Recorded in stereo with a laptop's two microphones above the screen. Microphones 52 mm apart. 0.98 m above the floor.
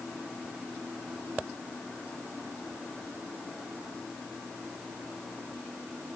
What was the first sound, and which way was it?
Only background noise.